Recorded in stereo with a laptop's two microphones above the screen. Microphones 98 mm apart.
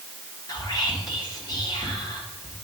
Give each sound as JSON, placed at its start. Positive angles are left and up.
{"t": 0.5, "sound": "whispering", "side_deg": 40, "distance_m": 1.5}